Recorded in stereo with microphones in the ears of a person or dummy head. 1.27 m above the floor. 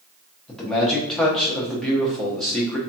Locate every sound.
0.5 s a man speaking: 5° left (ahead or behind), 0.6 m